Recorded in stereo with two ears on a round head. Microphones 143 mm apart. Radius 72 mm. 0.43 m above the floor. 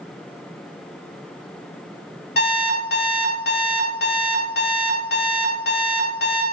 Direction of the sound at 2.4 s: 65° left (ahead or behind).